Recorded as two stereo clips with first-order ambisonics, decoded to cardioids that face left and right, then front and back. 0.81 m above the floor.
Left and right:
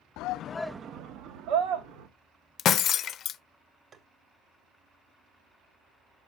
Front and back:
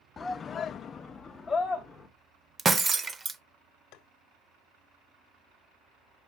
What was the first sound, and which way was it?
A shout, 75° left.